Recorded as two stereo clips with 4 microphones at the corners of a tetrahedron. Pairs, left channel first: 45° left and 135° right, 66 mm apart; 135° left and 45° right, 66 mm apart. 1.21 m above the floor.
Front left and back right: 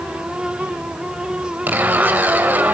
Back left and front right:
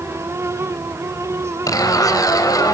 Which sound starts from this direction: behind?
A zipper, at 1.7 s.